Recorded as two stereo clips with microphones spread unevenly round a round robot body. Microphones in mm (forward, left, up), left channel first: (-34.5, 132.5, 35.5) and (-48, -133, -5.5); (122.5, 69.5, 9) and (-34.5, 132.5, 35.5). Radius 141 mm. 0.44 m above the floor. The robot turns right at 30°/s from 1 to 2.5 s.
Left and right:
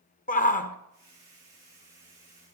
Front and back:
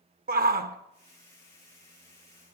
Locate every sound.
0.3 s a shout: 145° left, 1.2 m